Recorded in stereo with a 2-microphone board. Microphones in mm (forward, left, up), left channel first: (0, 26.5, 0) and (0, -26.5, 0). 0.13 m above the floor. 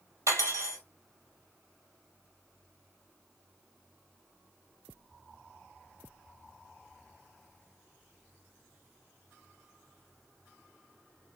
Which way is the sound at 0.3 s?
65° right (ahead or behind).